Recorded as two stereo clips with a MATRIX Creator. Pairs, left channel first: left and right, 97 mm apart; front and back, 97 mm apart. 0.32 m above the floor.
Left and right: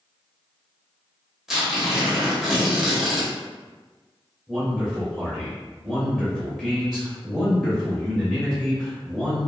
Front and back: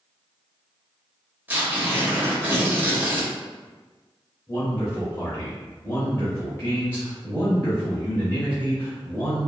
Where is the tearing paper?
165° right, 1.1 m.